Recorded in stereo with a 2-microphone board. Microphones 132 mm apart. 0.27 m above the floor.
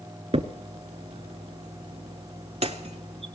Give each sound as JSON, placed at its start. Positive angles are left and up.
{"t": 0.3, "sound": "a crack", "side_deg": -50, "distance_m": 0.5}